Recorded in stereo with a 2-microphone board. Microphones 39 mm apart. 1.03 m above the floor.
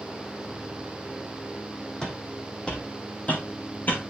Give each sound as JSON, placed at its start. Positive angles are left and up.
{"t": 2.0, "sound": "footsteps", "side_deg": 20, "distance_m": 2.5}